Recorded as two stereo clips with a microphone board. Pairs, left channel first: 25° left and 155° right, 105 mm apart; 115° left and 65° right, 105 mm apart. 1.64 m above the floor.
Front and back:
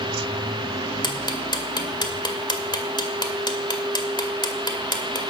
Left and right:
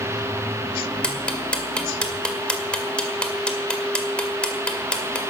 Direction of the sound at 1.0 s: 35° left.